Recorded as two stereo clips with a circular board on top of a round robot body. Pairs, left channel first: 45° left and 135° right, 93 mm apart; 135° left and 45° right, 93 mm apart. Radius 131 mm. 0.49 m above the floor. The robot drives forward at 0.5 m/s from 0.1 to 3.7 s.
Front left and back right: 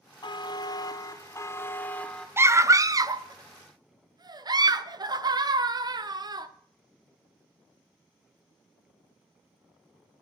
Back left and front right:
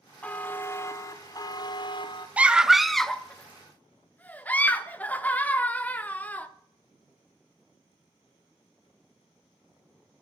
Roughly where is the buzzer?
Ahead left.